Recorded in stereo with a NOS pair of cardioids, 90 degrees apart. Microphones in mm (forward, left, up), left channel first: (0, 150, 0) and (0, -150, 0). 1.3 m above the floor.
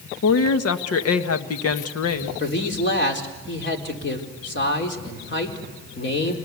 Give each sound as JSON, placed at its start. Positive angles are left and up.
{"t": 0.2, "sound": "a woman speaking", "azimuth_deg": 50, "distance_m": 1.6}
{"t": 2.4, "sound": "a man speaking", "azimuth_deg": 40, "distance_m": 4.0}